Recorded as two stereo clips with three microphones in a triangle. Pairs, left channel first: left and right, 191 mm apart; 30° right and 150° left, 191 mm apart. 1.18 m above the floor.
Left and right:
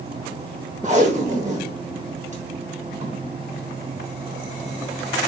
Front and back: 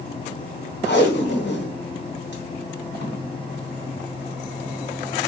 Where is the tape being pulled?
45° right, 1.0 m.